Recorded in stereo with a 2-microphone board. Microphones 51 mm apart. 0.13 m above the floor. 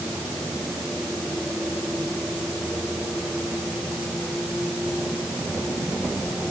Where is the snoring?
No snoring in this recording.